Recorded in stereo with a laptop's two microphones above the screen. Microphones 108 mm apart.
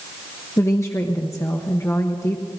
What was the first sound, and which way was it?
A woman speaking, 25° left (ahead or behind).